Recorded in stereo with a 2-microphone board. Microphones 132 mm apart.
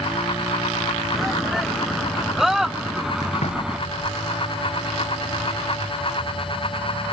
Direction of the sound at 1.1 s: Centre (ahead or behind).